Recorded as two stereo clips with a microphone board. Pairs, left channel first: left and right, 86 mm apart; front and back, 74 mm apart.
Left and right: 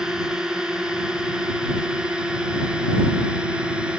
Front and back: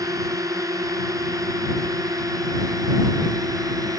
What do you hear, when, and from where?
0.0 s a drone: 170° right; by 4.0 s 165° right